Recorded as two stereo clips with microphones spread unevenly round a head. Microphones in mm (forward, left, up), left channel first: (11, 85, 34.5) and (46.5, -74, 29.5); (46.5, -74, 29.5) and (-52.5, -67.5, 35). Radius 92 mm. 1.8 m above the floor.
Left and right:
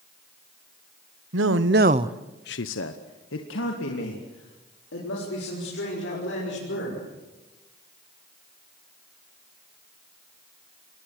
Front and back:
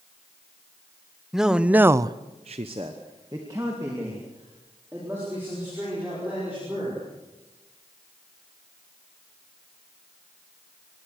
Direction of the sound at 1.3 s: 100° right.